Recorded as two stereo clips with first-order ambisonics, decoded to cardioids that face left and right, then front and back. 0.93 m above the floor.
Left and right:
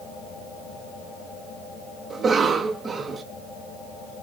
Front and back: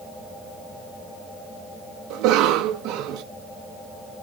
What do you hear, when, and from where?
2.1 s a cough: 160° right, 0.8 m